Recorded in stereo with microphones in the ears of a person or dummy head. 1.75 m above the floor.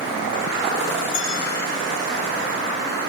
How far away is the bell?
About 6 m.